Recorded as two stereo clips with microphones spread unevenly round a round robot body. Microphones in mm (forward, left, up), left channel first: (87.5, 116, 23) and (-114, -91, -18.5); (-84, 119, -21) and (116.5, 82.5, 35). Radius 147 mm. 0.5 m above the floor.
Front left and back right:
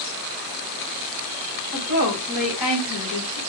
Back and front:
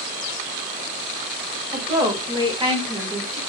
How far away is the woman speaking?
About 1.9 m.